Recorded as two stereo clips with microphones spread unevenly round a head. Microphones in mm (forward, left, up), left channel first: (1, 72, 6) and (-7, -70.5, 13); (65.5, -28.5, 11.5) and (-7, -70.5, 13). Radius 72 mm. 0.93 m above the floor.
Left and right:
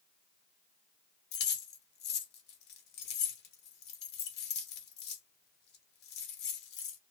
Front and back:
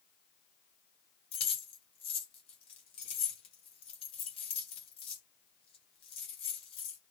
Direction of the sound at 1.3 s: 70° left.